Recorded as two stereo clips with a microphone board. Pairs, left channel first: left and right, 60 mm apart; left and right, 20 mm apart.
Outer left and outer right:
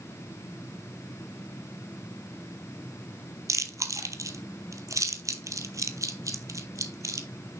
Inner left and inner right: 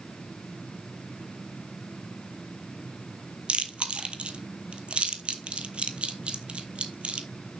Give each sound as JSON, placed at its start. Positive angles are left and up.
{"t": 3.5, "sound": "chewing", "side_deg": -65, "distance_m": 0.9}